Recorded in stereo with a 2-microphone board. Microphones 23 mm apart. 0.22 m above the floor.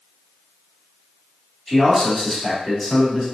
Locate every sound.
1.7 s a man speaking: 10° left (ahead or behind), 1.3 m